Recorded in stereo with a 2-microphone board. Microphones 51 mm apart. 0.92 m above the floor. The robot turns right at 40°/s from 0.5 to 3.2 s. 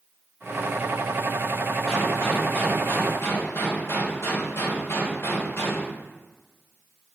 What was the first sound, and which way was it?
A gunshot, 5° left.